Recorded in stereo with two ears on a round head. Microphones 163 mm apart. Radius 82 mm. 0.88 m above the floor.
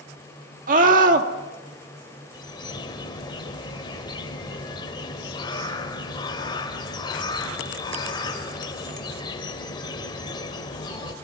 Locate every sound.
0.7 s a scream: 45° right (ahead or behind), 2 m
2.3 s a bird: 25° left (ahead or behind), 2 m